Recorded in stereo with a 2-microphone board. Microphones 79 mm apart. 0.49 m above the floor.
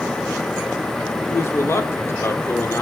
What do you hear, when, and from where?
1.3 s a man speaking: 35° left (ahead or behind), 0.9 m